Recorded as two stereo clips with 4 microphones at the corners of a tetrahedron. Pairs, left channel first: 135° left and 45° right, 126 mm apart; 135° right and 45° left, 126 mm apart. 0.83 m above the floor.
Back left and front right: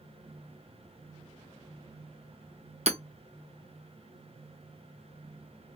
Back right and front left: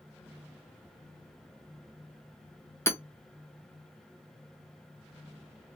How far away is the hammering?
About 0.6 m.